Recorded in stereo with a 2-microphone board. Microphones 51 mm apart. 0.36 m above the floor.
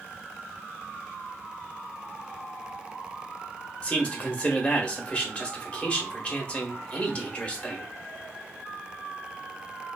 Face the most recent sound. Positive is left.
turn(degrees=25)  # may be behind; listen again after turning